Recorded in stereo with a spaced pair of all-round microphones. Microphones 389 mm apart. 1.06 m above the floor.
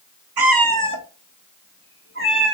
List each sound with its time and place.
0.4 s a cat meowing: 70° right (ahead or behind), 0.6 m; by 2.6 s 30° right (ahead or behind), 1.6 m